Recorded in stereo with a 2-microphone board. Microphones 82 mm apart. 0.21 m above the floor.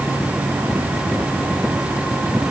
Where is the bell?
No bell in this recording.